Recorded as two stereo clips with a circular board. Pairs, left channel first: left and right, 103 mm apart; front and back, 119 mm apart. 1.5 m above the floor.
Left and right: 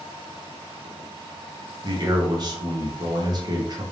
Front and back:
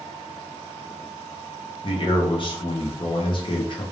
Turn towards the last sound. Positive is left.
turn(degrees=-45)